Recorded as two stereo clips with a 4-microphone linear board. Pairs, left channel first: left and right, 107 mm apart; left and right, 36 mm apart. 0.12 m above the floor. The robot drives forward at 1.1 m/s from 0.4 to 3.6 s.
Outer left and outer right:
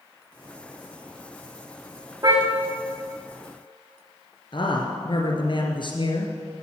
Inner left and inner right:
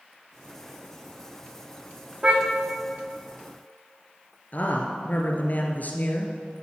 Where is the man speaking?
50° left (ahead or behind), 2.0 m.